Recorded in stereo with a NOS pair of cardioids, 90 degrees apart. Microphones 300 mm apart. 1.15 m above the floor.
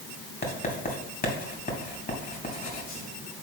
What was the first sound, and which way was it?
Writing, 30° left.